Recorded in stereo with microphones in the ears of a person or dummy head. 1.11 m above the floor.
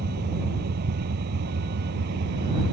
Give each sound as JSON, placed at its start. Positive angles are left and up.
{"t": 0.0, "sound": "a vehicle", "side_deg": -55}